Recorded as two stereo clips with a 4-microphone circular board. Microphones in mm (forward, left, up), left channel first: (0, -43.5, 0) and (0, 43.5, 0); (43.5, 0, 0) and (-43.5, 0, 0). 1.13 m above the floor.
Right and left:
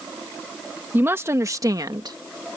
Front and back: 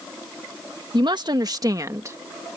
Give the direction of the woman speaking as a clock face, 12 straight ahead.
7 o'clock.